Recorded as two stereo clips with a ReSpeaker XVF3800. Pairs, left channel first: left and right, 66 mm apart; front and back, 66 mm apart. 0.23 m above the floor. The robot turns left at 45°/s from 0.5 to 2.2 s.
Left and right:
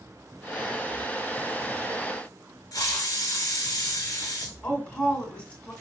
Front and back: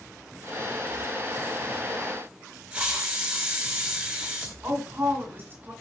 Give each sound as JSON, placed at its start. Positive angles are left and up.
{"t": 2.7, "sound": "a hiss", "azimuth_deg": 110, "distance_m": 0.9}
{"t": 4.6, "sound": "a woman speaking", "azimuth_deg": 150, "distance_m": 1.7}